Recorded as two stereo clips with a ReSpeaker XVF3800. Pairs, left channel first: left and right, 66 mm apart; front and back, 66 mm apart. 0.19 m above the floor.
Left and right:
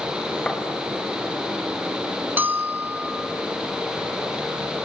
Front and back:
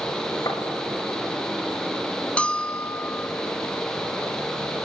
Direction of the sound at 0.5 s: 15° left.